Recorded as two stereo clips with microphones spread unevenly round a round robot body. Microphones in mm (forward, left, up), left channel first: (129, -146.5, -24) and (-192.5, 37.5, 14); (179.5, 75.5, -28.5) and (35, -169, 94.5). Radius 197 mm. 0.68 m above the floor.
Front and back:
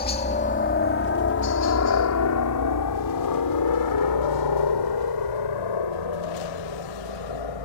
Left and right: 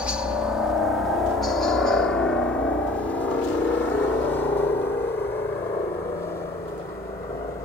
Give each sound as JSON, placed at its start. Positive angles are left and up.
{"t": 0.0, "sound": "a helicopter", "azimuth_deg": 15}